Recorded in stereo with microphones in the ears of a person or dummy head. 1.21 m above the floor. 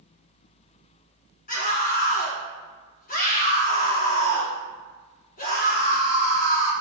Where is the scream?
35° left (ahead or behind), 1.4 m.